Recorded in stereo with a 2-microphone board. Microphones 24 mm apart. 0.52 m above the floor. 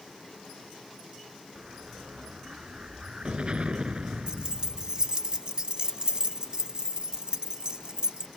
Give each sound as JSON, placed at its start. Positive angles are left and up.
{"t": 1.6, "sound": "an explosion", "side_deg": -45}
{"t": 4.3, "sound": "keys jangling", "side_deg": -35}